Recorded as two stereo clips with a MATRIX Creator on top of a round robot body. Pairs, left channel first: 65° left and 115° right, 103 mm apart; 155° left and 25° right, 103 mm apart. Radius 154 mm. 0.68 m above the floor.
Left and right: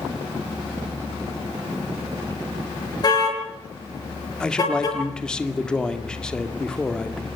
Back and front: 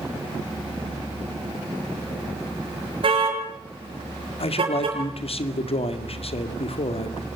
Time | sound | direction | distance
3.0 | a car horn | 15° left | 6 m
4.4 | a man speaking | 150° left | 2.5 m